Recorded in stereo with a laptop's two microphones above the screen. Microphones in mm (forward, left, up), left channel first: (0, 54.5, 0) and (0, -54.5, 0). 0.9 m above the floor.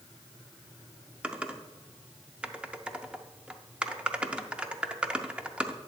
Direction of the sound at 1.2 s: 10° right (ahead or behind).